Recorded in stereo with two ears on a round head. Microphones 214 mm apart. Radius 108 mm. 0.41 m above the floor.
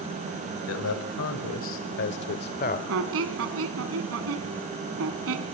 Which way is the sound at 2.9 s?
65° right (ahead or behind).